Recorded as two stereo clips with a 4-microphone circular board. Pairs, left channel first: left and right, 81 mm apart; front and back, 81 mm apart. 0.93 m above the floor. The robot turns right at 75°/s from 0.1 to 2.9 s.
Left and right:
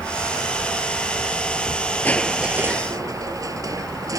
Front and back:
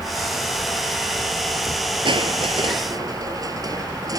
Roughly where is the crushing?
Behind.